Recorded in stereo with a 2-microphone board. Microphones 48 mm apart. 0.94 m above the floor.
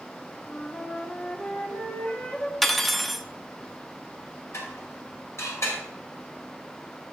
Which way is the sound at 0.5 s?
35° left (ahead or behind).